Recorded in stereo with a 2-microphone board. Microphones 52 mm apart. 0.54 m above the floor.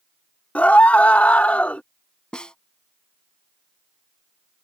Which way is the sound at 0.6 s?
25° left (ahead or behind).